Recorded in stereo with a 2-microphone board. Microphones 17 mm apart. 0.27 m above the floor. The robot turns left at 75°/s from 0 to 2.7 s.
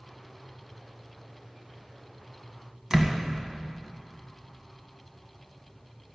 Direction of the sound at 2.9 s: 25° right (ahead or behind).